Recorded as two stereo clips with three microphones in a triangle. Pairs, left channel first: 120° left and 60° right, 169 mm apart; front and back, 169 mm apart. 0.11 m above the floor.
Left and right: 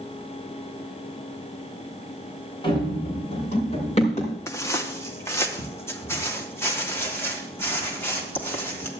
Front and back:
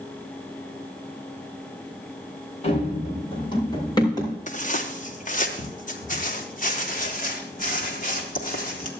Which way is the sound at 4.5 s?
45° left.